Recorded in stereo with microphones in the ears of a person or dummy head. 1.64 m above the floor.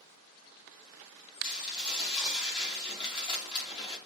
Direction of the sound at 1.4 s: 25° left (ahead or behind).